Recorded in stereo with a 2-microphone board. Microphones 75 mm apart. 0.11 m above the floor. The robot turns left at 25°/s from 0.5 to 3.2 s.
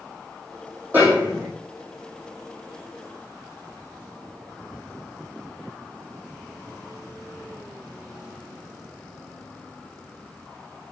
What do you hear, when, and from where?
0.9 s a snare drum: 25° right (ahead or behind), 4 m; by 1.5 s 15° right (ahead or behind), 4 m